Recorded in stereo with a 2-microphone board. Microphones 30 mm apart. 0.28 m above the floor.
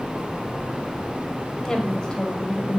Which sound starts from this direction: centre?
A woman speaking, at 1.6 s.